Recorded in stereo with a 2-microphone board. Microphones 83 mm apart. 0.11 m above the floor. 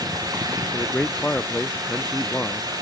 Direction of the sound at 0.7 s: 15° left (ahead or behind).